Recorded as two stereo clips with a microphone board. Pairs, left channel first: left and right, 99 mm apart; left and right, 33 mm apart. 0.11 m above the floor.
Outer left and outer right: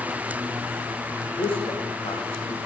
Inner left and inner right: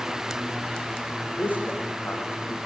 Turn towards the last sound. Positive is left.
turn(degrees=75)  # may be behind; listen again after turning